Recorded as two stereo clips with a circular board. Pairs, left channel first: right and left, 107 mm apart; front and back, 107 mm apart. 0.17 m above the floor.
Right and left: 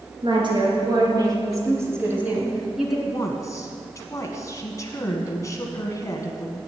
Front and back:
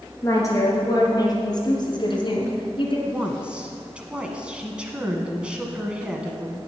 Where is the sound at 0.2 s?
60° left, 3.5 m; by 3.0 s straight ahead, 2.5 m.